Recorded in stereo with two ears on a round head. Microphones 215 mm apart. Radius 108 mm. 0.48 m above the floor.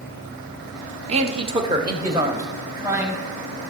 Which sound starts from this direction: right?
A man speaking, at 1.1 s.